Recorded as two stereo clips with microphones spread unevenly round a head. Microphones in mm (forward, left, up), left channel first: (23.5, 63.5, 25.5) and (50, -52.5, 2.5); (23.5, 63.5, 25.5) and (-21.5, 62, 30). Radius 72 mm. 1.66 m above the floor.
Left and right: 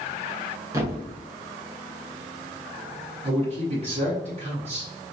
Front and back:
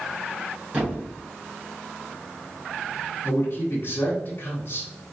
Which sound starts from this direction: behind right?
A thud, at 0.7 s.